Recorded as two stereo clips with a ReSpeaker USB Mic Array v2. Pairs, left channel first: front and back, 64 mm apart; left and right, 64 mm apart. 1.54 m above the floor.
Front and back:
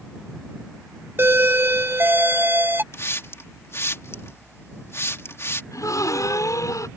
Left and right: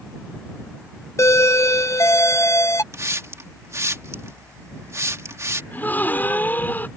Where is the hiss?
50° right.